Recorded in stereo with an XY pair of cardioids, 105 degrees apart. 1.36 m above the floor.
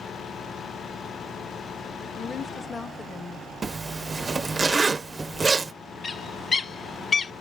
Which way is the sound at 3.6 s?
30° right.